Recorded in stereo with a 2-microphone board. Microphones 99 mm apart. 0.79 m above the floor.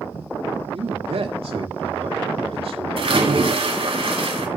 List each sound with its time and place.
0.7 s a man speaking: 75° right (ahead or behind), 1.7 m
3.0 s a splash: 65° right (ahead or behind), 2.5 m